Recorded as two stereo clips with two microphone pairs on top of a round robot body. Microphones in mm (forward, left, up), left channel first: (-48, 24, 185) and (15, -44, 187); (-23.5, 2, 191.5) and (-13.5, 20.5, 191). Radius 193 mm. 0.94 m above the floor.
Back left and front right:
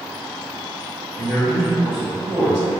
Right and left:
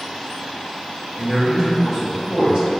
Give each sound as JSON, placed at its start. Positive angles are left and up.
{"t": 1.1, "sound": "a man speaking", "azimuth_deg": 50, "distance_m": 1.8}